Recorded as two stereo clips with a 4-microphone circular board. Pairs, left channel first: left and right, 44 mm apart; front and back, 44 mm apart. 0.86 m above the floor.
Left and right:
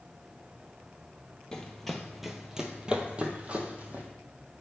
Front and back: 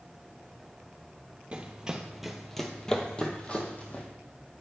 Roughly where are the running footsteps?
Behind left.